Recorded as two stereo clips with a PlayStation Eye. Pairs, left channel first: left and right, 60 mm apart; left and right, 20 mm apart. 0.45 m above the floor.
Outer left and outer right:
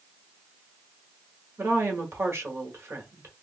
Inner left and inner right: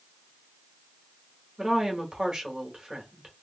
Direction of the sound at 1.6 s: 40° right (ahead or behind).